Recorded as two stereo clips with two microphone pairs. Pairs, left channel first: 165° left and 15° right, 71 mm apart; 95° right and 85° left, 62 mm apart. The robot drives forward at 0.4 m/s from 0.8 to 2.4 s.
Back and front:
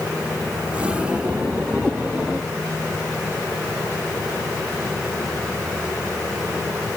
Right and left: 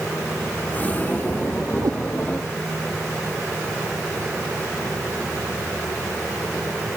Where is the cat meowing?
85° left.